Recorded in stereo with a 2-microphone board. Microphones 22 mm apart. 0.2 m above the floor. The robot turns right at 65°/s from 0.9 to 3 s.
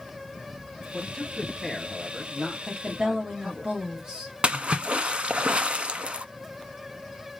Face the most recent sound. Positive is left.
turn(degrees=-55)  # may be behind; listen again after turning